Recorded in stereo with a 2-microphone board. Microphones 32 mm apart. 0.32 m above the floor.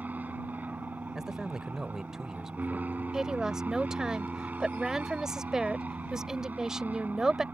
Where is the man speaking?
15° right (ahead or behind).